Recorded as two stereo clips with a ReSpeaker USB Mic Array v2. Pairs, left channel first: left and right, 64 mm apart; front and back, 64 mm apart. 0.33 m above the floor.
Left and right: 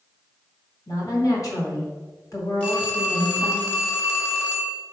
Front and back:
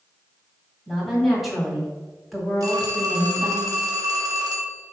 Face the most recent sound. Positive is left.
turn(degrees=155)